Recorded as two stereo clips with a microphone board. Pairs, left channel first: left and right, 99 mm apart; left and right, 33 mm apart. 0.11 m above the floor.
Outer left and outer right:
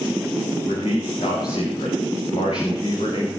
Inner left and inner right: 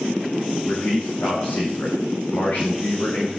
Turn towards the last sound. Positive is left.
turn(degrees=80)